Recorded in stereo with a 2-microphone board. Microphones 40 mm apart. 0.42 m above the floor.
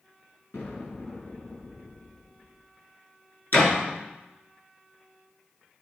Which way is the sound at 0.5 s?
75° left (ahead or behind).